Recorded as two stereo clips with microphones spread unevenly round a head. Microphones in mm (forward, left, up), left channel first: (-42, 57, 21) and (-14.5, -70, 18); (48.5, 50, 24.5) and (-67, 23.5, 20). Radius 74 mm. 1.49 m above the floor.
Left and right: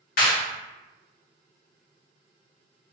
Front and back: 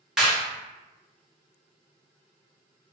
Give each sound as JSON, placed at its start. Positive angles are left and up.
{"t": 0.2, "sound": "a clap", "azimuth_deg": 105, "distance_m": 1.6}